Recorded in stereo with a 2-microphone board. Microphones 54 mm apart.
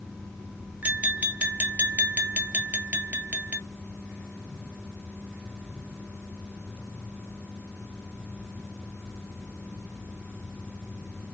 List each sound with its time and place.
0.8 s tapping: 30° right (ahead or behind), 0.8 m